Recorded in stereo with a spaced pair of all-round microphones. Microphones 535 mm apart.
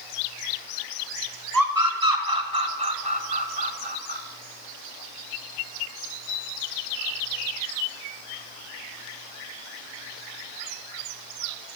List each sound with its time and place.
1.5 s a scream: 35° right (ahead or behind), 6 m; by 4.2 s 50° right (ahead or behind), 6.5 m